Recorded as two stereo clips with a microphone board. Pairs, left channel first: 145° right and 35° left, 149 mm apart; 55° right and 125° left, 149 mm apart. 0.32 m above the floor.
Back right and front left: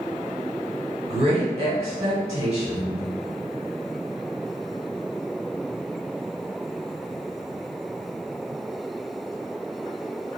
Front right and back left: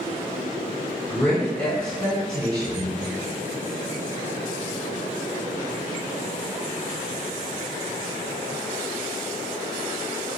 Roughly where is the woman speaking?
Ahead.